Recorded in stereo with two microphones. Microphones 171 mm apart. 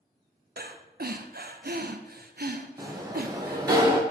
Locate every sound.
0.6 s breathing: 65° right (ahead or behind), 0.6 m
2.8 s a sliding door: 25° right (ahead or behind), 1.1 m